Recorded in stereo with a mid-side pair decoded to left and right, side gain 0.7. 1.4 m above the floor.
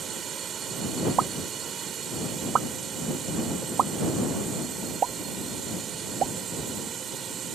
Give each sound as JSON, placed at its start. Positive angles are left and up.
{"t": 0.0, "sound": "a drone", "azimuth_deg": -40}
{"t": 1.2, "sound": "a pop", "azimuth_deg": -40}